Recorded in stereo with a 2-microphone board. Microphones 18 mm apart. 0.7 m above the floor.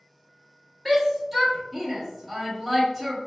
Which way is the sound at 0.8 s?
Centre (ahead or behind).